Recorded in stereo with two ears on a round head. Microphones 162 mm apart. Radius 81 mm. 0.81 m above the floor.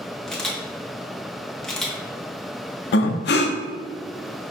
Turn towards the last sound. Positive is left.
turn(degrees=60)  # may be behind; listen again after turning